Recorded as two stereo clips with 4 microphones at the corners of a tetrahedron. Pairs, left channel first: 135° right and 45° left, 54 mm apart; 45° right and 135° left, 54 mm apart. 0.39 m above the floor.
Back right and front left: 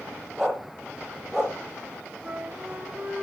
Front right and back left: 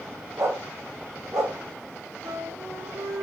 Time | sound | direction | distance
0.4 | a dog barking | 130° left | 4.5 m
2.2 | a flute | 115° left | 4 m